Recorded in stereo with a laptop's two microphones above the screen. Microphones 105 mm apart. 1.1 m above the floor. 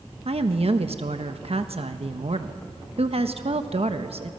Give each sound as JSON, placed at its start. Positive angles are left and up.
{"t": 0.2, "sound": "a woman speaking", "side_deg": -65, "distance_m": 1.2}